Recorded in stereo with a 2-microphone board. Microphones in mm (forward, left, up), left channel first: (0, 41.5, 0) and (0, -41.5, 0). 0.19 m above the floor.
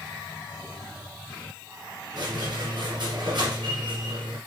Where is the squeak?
50° right (ahead or behind), 2 m.